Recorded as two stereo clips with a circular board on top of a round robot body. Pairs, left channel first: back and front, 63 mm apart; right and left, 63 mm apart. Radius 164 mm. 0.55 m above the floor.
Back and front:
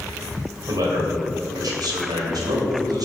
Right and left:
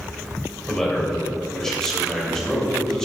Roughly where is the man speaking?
Ahead.